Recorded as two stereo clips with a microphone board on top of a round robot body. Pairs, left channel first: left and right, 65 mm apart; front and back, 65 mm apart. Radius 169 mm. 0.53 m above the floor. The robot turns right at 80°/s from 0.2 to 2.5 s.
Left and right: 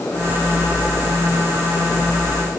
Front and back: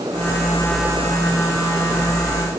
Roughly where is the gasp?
I don't hear a gasp.